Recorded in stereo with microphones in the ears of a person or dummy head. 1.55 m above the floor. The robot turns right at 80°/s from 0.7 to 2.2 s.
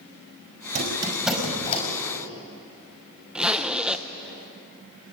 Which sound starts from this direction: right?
A squeak, at 0.8 s.